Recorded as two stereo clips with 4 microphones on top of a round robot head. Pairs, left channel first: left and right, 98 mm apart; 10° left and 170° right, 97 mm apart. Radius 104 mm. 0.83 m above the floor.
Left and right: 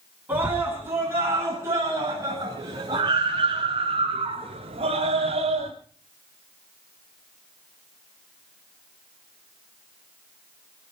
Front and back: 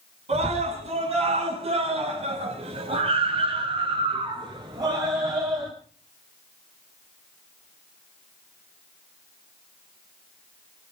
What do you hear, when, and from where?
0.3 s a scream: 165° right, 8 m; by 5.7 s 100° right, 4 m